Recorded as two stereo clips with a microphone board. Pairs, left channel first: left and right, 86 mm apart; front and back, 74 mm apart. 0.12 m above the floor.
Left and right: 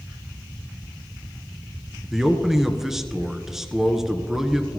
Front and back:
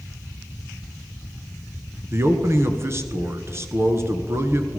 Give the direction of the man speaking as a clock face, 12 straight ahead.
6 o'clock.